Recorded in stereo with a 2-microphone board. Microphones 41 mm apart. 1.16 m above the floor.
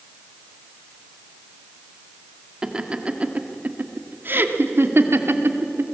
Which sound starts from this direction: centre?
Laughter, at 2.6 s.